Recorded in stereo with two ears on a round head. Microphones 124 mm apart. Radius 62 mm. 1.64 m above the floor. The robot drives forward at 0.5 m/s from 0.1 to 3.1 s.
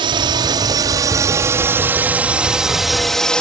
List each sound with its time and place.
0.0 s a drone: 35° right (ahead or behind); by 3.4 s 5° left (ahead or behind)